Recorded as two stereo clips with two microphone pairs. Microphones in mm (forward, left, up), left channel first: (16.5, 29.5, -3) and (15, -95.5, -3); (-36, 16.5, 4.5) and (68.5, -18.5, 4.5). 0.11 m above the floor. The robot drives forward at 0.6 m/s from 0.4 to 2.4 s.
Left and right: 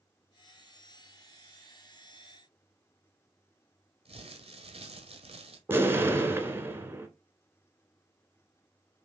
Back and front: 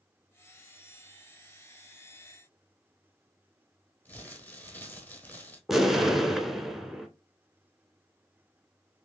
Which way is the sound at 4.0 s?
125° right.